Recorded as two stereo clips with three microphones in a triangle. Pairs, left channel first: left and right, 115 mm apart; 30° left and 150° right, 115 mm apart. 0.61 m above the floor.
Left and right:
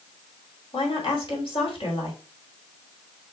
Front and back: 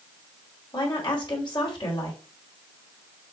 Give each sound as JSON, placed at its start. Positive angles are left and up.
{"t": 0.7, "sound": "a woman speaking", "azimuth_deg": 65, "distance_m": 2.0}